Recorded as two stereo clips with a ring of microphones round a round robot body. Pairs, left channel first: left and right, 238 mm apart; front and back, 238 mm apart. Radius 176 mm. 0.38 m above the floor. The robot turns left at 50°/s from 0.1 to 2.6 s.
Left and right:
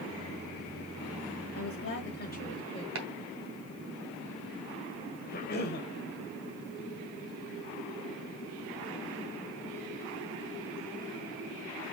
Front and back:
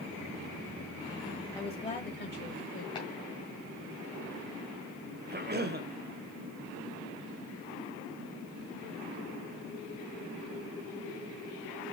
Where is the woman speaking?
85° left, 1.8 m; by 2.9 s 30° left, 1.8 m.